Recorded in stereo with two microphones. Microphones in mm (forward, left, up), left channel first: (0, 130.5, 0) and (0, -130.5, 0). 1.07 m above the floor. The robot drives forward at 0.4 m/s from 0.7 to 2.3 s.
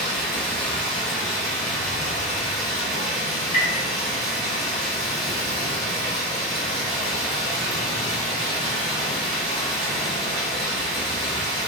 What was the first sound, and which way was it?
Running water, 5° left (ahead or behind).